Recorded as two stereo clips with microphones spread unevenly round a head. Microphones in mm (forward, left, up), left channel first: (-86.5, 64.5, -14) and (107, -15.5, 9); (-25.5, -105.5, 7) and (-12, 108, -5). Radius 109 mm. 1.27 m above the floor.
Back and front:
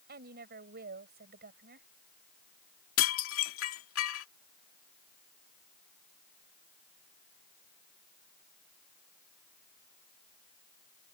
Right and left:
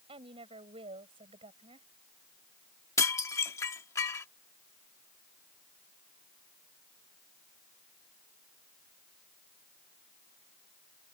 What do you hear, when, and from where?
0.1 s a woman speaking: 20° left
3.0 s dishes clattering: 170° right